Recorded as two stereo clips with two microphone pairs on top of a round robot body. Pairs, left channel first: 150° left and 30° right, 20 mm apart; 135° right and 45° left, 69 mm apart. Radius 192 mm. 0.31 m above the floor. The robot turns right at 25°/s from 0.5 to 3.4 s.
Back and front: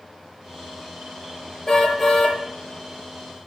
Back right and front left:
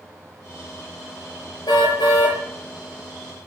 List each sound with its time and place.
1.7 s a car horn: 145° right, 6 m; by 2.4 s 125° right, 6 m